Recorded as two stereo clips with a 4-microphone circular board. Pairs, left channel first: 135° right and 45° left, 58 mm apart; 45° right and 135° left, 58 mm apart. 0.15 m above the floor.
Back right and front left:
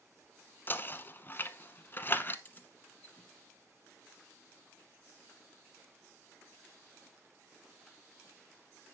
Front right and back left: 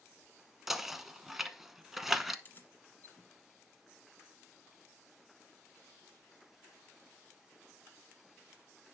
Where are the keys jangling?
85° right, 1.4 m.